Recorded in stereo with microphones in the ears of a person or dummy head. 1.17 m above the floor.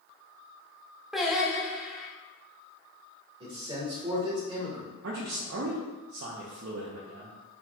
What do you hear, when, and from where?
1.1 s singing: centre (ahead or behind), 0.7 m
3.4 s a man speaking: 25° right (ahead or behind), 1.2 m
5.0 s a man speaking: 55° right (ahead or behind), 0.5 m